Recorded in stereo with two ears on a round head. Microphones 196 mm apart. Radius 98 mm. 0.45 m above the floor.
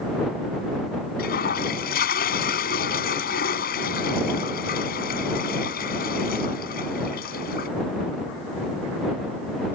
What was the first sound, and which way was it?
A toilet flushing, 45° left (ahead or behind).